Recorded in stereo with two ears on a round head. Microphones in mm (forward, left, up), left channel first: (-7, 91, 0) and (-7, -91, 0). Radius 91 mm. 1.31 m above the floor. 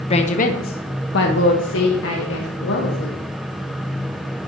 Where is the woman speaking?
30° left (ahead or behind), 0.9 m; by 3.2 s 70° left (ahead or behind), 2 m.